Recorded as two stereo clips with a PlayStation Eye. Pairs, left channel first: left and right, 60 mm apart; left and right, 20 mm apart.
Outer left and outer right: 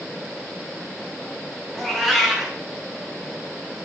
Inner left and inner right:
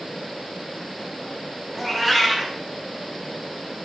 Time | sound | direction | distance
1.7 | a cat meowing | centre (ahead or behind) | 0.6 m